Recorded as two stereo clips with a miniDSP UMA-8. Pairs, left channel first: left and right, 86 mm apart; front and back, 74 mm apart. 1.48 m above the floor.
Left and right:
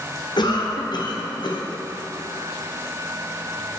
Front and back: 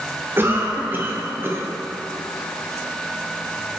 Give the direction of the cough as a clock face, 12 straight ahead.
8 o'clock.